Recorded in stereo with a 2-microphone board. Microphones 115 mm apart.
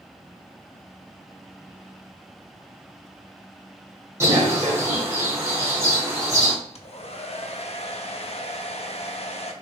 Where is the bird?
25° right (ahead or behind), 1.8 m.